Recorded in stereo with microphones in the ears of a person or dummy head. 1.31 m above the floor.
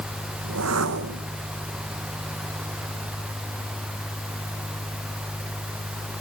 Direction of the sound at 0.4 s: 80° right.